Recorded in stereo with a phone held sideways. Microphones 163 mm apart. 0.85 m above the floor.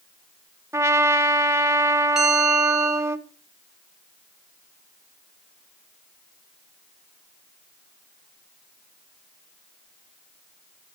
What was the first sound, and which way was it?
A trumpet, 15° right (ahead or behind).